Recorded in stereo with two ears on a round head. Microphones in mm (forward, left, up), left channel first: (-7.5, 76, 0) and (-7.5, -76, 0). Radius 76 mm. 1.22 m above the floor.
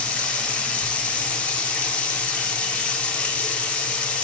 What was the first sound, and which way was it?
Running water, 10° left (ahead or behind).